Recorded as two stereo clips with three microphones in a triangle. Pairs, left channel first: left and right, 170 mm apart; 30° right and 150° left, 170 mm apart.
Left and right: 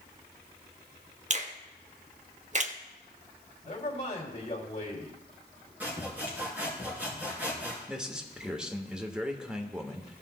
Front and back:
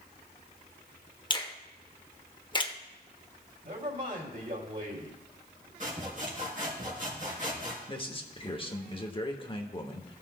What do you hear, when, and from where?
1.3 s a finger snap: 80° right, 0.7 m
3.6 s a man speaking: 130° left, 2.5 m
5.8 s sawing: 170° right, 3.5 m
7.9 s a man speaking: 10° right, 0.9 m